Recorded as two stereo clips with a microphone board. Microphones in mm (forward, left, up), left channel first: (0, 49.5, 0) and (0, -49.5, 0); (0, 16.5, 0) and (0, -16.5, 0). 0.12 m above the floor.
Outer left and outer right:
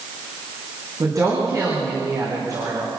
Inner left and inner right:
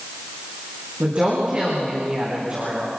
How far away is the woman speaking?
About 8 m.